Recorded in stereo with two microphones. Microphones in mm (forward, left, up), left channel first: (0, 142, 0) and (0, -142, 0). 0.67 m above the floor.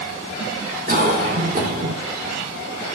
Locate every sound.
0.9 s a cough: 30° right (ahead or behind), 2.5 m